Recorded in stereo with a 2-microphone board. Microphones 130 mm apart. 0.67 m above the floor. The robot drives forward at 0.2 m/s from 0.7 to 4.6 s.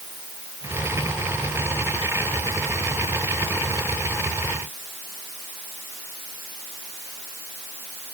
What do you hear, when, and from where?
Only background noise.